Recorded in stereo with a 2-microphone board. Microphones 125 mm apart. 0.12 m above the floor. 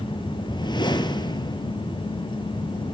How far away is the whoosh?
About 1.5 m.